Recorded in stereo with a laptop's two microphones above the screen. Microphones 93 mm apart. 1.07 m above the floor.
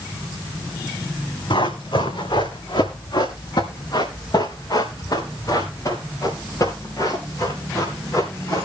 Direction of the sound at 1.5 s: 65° left (ahead or behind).